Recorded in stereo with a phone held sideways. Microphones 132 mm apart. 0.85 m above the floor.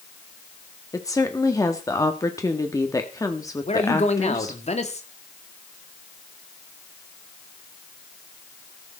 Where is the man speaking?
55° left (ahead or behind), 2 m.